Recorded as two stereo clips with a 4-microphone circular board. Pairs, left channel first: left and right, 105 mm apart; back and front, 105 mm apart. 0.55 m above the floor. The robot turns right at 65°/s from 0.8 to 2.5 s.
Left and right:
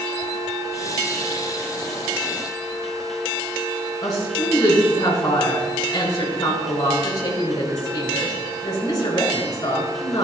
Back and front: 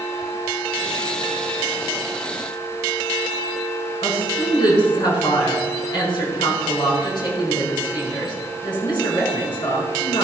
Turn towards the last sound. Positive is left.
turn(degrees=140)